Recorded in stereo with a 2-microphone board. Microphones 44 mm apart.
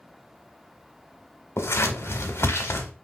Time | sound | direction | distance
1.6 | scissors | 70° left (ahead or behind) | 1.0 m